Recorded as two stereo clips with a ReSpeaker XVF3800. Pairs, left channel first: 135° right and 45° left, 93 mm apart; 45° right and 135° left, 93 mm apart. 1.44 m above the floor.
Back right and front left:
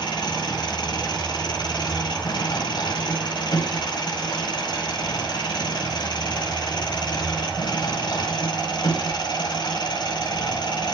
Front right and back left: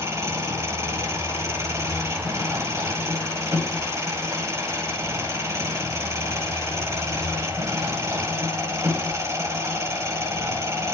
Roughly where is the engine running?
Behind.